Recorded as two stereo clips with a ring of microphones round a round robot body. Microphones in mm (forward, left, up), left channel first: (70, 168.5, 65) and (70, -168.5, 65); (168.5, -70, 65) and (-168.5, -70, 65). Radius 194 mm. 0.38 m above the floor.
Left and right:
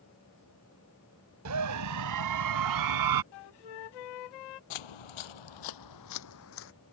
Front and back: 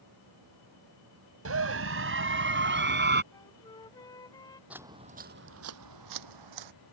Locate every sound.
1.4 s a scream: 135° right; by 3.2 s 120° right
3.3 s a flute: 80° left
4.7 s footsteps: 95° left; by 6.7 s 150° left